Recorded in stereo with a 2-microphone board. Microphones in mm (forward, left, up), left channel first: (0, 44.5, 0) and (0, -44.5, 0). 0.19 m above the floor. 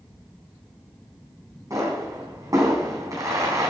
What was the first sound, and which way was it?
A pop, 45° right (ahead or behind).